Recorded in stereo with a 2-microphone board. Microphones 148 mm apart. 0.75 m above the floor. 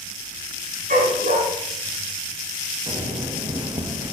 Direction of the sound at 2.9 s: 35° right (ahead or behind).